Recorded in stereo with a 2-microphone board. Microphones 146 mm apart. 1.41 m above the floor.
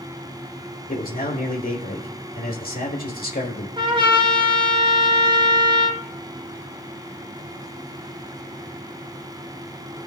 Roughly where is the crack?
No crack in this recording.